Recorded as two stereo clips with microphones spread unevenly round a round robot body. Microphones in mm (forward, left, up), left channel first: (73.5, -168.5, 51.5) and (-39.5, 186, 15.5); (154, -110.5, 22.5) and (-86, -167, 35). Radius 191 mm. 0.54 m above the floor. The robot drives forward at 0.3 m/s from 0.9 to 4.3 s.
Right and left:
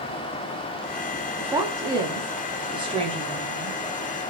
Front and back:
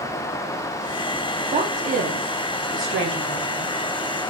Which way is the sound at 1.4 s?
165° left.